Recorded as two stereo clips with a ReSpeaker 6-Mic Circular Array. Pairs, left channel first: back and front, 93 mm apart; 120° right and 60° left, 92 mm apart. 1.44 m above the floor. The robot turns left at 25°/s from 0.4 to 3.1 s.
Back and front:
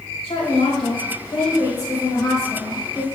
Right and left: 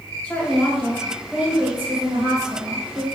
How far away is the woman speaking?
About 1.5 m.